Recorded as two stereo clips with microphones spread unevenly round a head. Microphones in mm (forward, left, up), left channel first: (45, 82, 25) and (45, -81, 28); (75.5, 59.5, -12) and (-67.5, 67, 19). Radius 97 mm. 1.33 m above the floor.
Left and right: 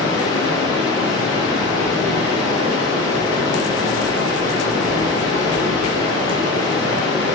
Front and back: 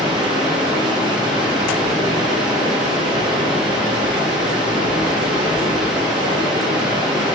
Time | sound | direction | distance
0.0 | running water | 95° left | 1.0 m